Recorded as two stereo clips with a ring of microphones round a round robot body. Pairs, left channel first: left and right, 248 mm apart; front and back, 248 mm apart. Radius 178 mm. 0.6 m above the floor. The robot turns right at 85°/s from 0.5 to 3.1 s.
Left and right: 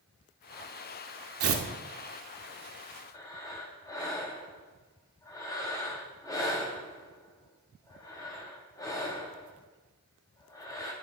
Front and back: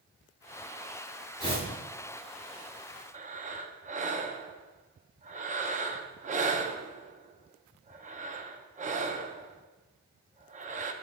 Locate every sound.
1.4 s tearing paper: 75° right, 0.9 m; by 1.6 s 55° right, 0.9 m
3.1 s breathing: 155° left, 0.6 m